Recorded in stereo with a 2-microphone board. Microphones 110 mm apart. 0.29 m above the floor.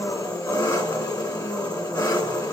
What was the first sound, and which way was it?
An engine running, 35° left (ahead or behind).